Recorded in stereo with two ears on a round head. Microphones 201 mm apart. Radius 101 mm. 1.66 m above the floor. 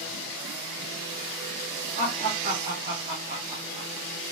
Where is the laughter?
40° right (ahead or behind), 1.6 m; by 3.9 s 5° right (ahead or behind), 0.5 m.